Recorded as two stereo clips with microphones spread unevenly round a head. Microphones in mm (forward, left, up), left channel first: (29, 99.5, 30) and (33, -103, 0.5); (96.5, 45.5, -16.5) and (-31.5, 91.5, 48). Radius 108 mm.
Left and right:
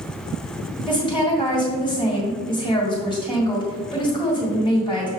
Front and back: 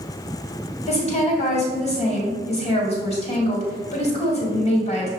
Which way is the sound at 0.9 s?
25° left.